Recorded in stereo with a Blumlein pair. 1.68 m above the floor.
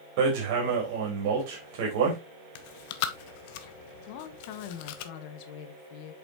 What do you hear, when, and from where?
0.2 s hammering: 45° right, 4 m
2.5 s chewing: 50° left, 1.0 m
4.1 s a woman speaking: 45° left, 1.5 m